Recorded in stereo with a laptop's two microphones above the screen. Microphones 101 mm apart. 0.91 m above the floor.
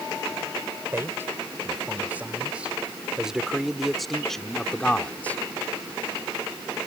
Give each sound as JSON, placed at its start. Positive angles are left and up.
{"t": 0.9, "sound": "a man speaking", "side_deg": -25}